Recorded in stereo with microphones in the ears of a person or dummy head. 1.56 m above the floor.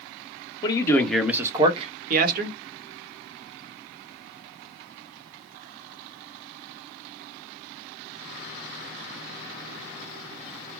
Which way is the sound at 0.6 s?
25° left (ahead or behind).